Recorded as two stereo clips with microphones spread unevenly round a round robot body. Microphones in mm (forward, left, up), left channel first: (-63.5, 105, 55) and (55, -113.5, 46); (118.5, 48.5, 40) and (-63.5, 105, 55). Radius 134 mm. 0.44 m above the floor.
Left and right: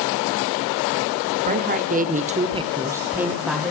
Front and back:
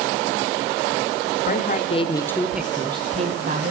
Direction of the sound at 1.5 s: 20° right.